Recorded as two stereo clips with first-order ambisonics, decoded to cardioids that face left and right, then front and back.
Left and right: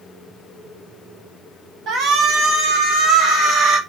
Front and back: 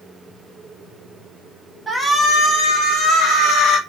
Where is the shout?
105° right, 0.7 m; by 3.8 s 45° right, 1.4 m.